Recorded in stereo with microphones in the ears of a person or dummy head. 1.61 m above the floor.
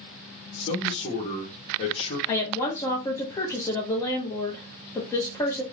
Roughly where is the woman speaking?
Centre.